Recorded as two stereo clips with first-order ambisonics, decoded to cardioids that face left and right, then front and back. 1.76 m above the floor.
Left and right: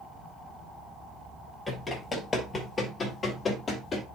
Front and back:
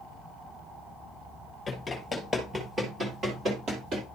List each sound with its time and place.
1.7 s running footsteps: 25° left, 1.8 m; by 4.0 s 155° left, 2.5 m